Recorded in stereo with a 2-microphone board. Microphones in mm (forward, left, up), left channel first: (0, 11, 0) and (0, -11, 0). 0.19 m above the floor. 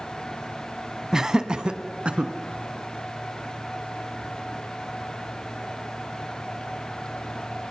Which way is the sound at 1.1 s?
25° right (ahead or behind).